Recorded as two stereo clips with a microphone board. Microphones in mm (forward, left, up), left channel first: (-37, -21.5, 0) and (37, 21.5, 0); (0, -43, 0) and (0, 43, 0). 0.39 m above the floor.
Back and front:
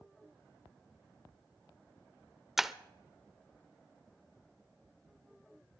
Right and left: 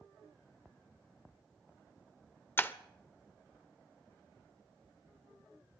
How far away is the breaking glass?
About 0.5 m.